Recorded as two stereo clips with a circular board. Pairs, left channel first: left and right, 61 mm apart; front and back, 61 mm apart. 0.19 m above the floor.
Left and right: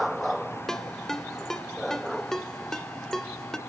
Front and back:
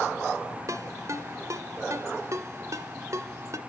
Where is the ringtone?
175° left, 1.5 m.